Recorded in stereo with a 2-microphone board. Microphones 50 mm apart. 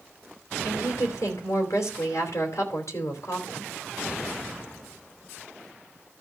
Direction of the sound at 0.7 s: 80° left.